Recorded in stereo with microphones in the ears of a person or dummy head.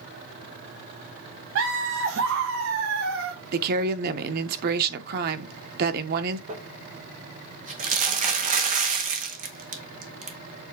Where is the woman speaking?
50° right (ahead or behind), 0.8 m.